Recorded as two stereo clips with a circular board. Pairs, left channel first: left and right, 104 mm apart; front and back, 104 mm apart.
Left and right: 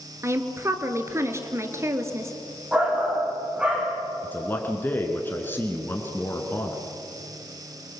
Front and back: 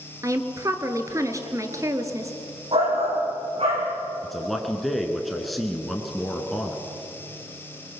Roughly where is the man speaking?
Left.